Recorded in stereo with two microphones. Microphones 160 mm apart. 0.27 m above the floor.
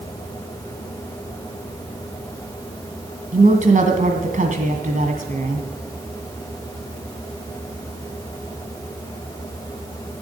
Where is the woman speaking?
55° right (ahead or behind), 2 m.